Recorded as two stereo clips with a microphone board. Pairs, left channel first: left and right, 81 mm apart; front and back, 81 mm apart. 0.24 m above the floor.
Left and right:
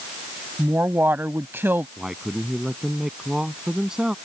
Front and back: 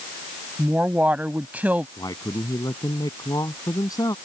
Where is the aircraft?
I don't hear an aircraft.